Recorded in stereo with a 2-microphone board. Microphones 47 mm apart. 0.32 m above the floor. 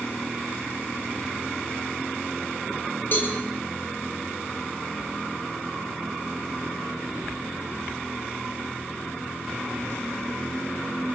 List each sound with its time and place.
3.1 s a cowbell: 40° left (ahead or behind), 8.5 m